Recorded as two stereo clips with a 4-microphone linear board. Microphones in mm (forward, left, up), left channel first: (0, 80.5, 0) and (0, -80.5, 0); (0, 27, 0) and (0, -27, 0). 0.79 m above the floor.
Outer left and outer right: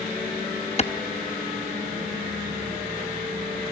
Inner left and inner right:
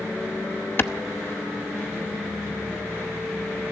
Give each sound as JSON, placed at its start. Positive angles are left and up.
{"t": 0.8, "sound": "a clap", "side_deg": 40, "distance_m": 0.7}